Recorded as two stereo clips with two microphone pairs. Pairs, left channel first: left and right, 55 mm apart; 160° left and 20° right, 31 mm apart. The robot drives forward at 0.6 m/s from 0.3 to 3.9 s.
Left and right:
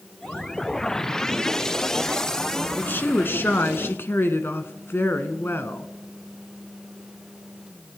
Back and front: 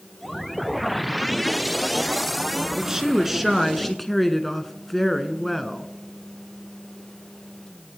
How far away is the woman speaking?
About 1.7 m.